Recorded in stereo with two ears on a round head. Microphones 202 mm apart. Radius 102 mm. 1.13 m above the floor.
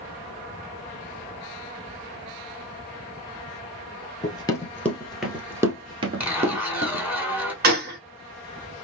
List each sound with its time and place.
4.2 s running footsteps: 20° left (ahead or behind), 1.3 m; by 7.1 s 40° right (ahead or behind), 1.4 m
6.2 s a zipper: 5° right (ahead or behind), 1.5 m
7.6 s a gunshot: 40° right (ahead or behind), 1.1 m